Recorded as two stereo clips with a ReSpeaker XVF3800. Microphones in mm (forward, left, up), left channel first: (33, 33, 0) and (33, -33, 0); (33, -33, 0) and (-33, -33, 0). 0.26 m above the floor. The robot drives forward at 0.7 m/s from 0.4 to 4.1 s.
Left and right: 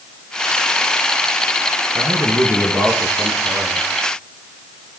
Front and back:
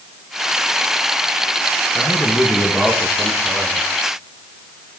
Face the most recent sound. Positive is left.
turn(degrees=-80)